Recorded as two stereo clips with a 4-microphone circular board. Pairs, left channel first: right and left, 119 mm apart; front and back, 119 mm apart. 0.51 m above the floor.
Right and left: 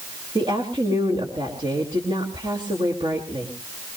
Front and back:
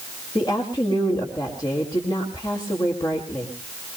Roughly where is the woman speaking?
Ahead left.